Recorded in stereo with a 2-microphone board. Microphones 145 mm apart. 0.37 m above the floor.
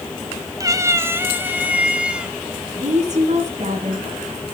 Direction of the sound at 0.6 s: 25° right (ahead or behind).